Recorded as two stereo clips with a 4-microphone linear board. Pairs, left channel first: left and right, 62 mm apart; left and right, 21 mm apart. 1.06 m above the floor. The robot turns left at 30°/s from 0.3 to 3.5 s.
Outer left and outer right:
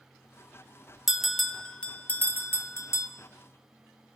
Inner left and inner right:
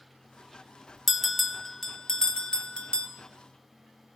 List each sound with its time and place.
1.1 s a bell: 5° right (ahead or behind), 1.0 m; by 3.1 s 55° left (ahead or behind), 1.0 m